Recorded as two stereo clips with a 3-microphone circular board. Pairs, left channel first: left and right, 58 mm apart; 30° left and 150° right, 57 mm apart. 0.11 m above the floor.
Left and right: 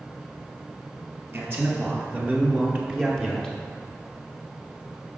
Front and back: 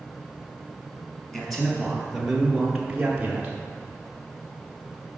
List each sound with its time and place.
1.3 s a man speaking: 45° right, 2.0 m; by 3.5 s 165° left, 1.2 m